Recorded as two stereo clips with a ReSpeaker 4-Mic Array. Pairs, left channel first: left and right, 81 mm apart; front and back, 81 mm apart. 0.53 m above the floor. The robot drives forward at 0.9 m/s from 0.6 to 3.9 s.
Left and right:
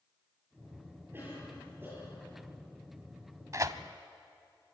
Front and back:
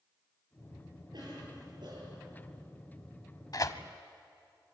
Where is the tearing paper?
40° right, 1.2 m; by 3.8 s 50° right, 1.0 m.